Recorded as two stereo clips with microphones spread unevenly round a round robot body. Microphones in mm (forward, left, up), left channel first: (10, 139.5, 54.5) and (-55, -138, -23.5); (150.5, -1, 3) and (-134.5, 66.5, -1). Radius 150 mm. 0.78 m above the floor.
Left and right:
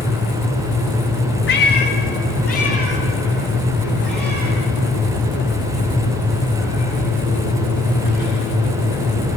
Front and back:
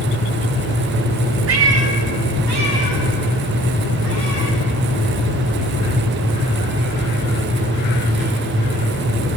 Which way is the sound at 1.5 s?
125° left.